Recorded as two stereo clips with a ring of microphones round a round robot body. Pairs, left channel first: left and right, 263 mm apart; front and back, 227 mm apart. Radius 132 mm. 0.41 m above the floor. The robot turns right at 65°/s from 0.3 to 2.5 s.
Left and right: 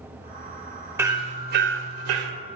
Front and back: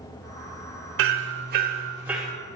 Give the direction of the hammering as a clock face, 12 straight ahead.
6 o'clock.